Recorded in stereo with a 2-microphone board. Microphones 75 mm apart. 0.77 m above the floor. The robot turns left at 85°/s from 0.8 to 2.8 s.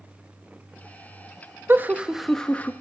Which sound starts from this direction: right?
Laughter, at 1.7 s.